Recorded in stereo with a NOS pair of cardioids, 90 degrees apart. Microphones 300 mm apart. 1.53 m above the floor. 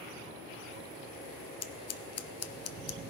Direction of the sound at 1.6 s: 60° left.